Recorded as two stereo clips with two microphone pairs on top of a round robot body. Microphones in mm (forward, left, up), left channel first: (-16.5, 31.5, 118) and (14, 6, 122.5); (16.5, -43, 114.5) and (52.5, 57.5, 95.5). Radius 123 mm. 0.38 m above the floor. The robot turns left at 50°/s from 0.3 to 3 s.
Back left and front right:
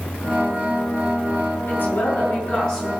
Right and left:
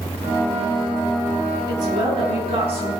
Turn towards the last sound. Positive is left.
turn(degrees=60)